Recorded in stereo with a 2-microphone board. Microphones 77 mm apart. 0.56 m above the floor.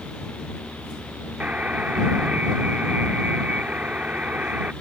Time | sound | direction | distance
1.4 | a buzzer | 20° right (ahead or behind) | ?